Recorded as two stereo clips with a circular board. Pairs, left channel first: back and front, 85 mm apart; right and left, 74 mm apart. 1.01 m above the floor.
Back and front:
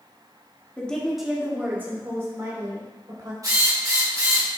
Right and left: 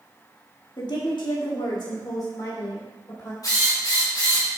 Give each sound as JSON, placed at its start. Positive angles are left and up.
{"t": 0.8, "sound": "a woman speaking", "azimuth_deg": -105, "distance_m": 1.7}
{"t": 3.4, "sound": "a drill", "azimuth_deg": -50, "distance_m": 2.5}